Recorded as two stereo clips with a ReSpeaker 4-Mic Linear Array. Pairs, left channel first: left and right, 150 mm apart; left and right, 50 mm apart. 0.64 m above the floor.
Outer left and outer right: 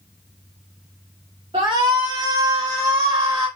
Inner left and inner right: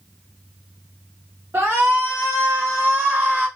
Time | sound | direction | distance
1.5 | a shout | 40° right (ahead or behind) | 1.6 m